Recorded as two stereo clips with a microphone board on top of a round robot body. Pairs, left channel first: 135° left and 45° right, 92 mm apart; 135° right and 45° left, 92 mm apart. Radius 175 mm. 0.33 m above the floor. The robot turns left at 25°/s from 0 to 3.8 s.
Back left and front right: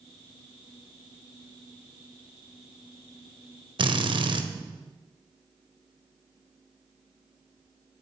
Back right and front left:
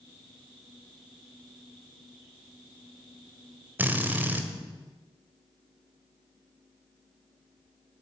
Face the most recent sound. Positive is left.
turn(degrees=-25)